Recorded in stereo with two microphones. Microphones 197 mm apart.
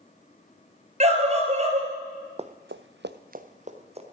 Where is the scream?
35° right (ahead or behind), 3 m.